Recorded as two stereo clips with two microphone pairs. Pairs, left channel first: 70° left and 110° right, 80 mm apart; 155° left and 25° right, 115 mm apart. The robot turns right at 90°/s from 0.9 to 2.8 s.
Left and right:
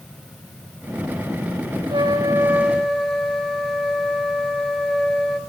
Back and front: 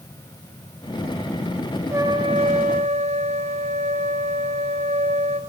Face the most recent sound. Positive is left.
turn(degrees=-15)